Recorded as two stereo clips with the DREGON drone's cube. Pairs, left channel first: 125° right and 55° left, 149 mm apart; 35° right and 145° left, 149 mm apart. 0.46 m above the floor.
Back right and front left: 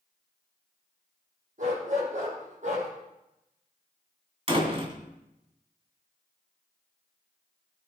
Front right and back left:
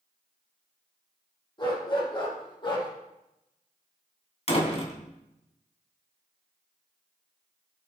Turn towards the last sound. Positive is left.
turn(degrees=10)